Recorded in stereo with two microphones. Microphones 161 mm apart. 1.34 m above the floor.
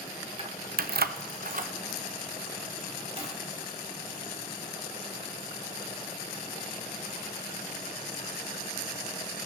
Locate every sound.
0.4 s keys jangling: 35° right (ahead or behind), 0.5 m